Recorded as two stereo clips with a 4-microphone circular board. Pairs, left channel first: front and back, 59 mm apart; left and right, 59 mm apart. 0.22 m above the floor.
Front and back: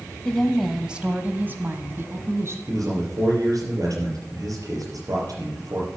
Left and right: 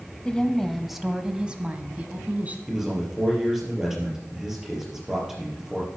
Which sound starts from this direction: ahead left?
A woman speaking, at 0.2 s.